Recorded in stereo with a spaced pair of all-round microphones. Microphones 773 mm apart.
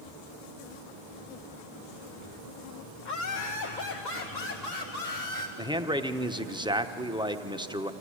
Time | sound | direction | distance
3.0 | laughter | 70° left (ahead or behind) | 1.1 m
5.6 | a man speaking | 5° right (ahead or behind) | 0.8 m